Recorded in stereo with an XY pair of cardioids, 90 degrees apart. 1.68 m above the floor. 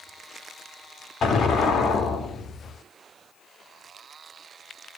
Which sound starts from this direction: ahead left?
An explosion, at 1.2 s.